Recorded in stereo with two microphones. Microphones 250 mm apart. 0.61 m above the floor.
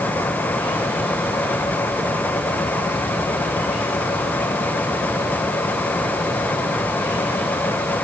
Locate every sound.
Only background noise.